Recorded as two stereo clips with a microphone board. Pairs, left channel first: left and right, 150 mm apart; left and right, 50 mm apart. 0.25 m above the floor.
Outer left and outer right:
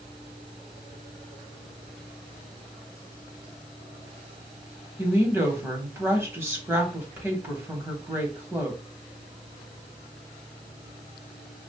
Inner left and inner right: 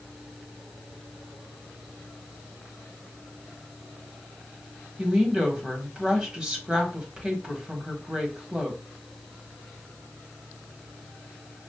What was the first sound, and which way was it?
A woman speaking, 15° right (ahead or behind).